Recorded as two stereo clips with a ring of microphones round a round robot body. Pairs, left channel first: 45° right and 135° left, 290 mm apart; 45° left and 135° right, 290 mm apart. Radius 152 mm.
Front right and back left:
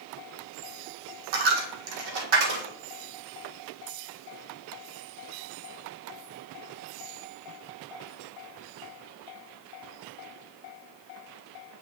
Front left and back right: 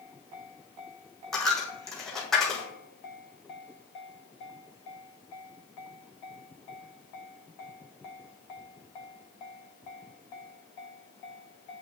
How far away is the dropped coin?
About 1.4 m.